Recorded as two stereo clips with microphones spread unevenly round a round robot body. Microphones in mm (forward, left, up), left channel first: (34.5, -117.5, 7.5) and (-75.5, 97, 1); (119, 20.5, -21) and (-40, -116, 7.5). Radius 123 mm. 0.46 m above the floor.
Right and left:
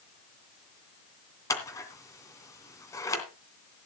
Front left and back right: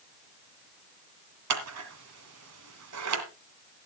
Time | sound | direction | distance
1.5 | scissors | 140° right | 2.5 m